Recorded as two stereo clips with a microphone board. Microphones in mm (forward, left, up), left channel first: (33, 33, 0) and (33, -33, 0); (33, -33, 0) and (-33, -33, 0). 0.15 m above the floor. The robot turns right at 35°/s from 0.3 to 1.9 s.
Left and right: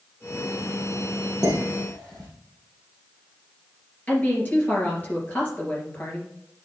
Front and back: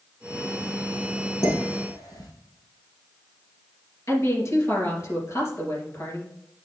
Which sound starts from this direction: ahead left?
A woman speaking, at 4.1 s.